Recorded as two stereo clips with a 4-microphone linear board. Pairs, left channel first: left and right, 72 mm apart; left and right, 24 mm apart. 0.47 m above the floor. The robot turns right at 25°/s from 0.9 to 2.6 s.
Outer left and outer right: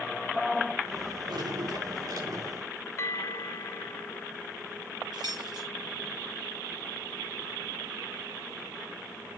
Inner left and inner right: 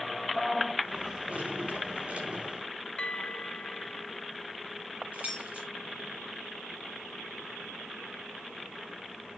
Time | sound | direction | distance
1.3 | dripping | 90° right | 6 m
3.0 | a bell | 45° left (ahead or behind) | 0.8 m
5.1 | keys jangling | 85° right | 6 m